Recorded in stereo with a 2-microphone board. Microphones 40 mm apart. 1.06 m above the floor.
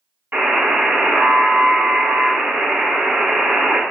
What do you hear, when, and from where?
0.3 s a buzzer: 45° right (ahead or behind), 1.3 m